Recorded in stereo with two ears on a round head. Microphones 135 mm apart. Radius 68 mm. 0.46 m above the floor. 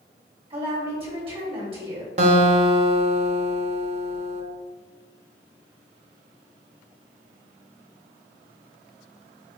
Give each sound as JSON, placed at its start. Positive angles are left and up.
{"t": 0.5, "sound": "a woman speaking", "side_deg": -40, "distance_m": 1.6}
{"t": 2.2, "sound": "a guitar", "side_deg": -45, "distance_m": 0.6}